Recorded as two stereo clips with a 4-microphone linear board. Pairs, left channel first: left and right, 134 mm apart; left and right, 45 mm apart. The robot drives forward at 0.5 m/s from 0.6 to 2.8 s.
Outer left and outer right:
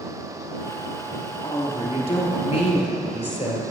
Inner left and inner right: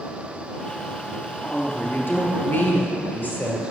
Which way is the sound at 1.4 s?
50° left (ahead or behind).